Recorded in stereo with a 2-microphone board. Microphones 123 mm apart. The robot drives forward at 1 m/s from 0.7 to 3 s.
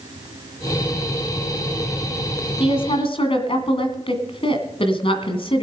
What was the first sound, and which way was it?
A woman speaking, 50° left (ahead or behind).